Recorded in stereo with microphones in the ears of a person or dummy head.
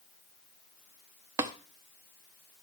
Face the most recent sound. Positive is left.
turn(degrees=-15)  # may be behind; listen again after turning